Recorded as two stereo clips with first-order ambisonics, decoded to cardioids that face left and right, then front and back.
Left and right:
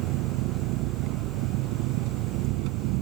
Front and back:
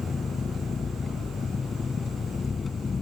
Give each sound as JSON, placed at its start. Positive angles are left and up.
{"t": 0.0, "sound": "an engine running", "azimuth_deg": -70}